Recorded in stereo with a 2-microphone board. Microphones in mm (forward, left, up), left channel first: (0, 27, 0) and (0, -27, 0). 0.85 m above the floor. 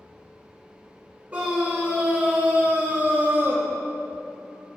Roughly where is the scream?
Right.